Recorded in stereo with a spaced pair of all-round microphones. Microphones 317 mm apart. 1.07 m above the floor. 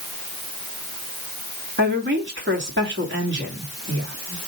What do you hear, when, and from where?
1.8 s a woman speaking: 40° right (ahead or behind), 2.5 m